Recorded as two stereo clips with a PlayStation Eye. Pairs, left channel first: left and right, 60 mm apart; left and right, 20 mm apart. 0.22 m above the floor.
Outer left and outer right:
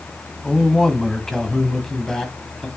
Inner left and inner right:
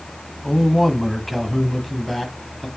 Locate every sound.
0.4 s a man speaking: 5° left (ahead or behind), 1.1 m